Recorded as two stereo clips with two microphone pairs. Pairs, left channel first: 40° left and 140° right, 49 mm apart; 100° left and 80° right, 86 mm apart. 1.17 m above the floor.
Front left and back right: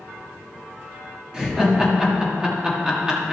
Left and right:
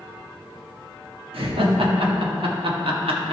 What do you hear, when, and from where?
1.3 s laughter: 70° right, 1.8 m